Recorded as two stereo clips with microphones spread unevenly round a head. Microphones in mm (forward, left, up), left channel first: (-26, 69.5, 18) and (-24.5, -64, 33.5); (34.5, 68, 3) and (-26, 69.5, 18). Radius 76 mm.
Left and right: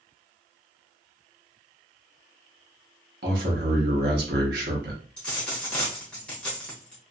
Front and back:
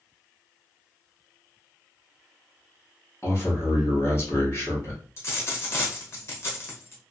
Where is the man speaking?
65° right, 1.0 m.